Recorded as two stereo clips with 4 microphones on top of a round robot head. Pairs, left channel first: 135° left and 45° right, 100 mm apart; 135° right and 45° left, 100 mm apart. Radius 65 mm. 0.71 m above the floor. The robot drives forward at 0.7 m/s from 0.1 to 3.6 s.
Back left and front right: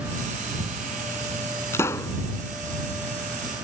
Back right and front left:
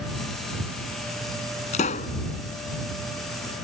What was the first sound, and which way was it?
A pop, 155° right.